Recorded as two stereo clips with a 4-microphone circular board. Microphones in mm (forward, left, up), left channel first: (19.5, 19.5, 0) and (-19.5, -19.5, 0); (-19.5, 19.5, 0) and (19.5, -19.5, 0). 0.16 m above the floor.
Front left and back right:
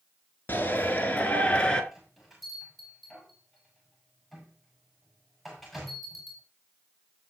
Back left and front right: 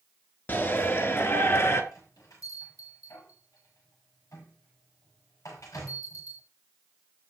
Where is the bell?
135° left, 7 m.